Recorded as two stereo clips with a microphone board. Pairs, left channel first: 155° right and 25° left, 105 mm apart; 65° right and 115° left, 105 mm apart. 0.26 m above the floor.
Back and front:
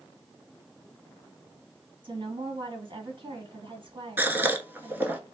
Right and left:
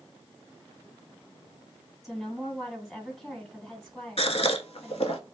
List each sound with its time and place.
2.0 s a woman speaking: 15° left, 2 m
4.2 s a gasp: 50° right, 0.6 m